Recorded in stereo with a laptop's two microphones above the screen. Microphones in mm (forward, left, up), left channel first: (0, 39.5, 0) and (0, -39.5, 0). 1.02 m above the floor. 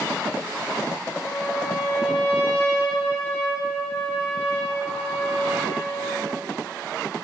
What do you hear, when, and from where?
1.1 s a trumpet: 15° left (ahead or behind), 4 m